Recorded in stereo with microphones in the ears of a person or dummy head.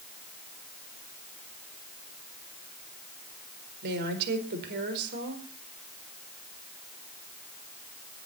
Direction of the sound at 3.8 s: 55° right (ahead or behind).